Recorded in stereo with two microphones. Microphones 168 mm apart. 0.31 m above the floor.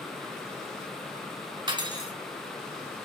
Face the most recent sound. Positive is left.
turn(degrees=-25)  # may be behind; listen again after turning